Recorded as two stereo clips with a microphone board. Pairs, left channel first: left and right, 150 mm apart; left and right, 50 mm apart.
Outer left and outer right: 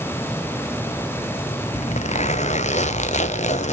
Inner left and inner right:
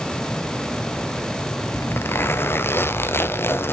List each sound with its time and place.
1.7 s a zipper: 50° left (ahead or behind), 0.6 m